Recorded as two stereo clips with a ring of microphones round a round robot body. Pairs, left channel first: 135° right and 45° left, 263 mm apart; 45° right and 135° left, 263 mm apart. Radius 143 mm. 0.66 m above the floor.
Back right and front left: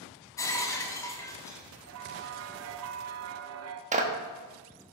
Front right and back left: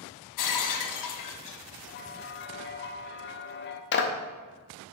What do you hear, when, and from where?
0.4 s breaking glass: 55° right, 0.9 m
1.9 s a bell: 5° left, 0.5 m
3.9 s a clap: 10° right, 1.0 m